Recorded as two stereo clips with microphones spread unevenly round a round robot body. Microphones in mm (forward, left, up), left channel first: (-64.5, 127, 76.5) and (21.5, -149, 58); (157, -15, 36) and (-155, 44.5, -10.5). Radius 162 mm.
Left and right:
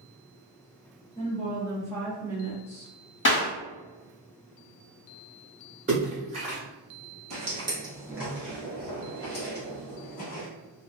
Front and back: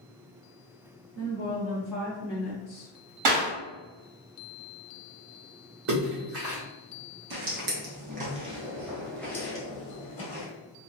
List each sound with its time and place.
1.1 s a woman speaking: 165° left, 1.3 m; by 2.9 s 30° right, 1.1 m
3.2 s a clap: 160° left, 1.5 m
5.9 s a splash: 140° right, 1.2 m
7.3 s footsteps: 140° right, 0.9 m; by 10.5 s 50° left, 1.2 m